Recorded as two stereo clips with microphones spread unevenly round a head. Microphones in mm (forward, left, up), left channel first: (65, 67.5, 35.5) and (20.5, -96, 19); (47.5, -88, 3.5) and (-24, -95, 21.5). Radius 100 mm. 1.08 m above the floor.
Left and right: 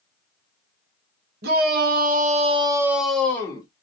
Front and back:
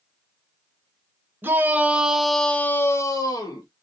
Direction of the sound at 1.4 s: 110° right.